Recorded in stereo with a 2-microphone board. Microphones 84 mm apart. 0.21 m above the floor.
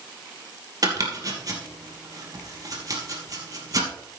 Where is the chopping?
45° right (ahead or behind), 3 m.